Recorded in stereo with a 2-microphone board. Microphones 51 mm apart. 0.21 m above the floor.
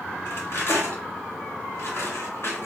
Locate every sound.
0.2 s cutlery clinking: 55° left (ahead or behind), 1.5 m